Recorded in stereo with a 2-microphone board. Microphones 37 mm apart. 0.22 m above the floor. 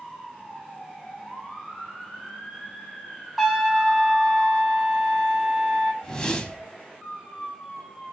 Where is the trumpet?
Centre (ahead or behind), 1.2 m.